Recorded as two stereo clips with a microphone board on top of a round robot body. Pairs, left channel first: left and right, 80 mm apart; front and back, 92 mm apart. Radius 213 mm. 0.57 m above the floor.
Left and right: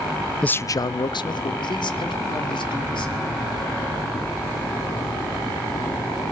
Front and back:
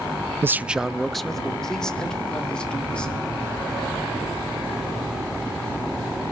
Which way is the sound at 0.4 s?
155° left.